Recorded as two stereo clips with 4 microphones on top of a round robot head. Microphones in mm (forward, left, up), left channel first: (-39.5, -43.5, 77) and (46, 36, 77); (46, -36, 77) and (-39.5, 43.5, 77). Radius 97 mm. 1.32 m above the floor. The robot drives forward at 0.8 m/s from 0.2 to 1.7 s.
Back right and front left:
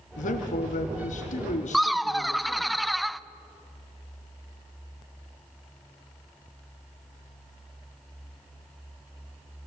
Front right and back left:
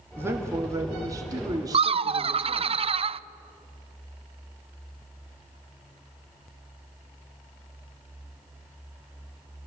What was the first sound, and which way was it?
A man speaking, 150° right.